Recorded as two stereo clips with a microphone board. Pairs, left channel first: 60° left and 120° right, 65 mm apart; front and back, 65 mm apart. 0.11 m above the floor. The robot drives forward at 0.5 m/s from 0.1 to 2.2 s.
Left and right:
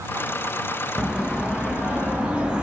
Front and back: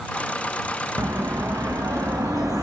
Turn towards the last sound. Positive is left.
turn(degrees=165)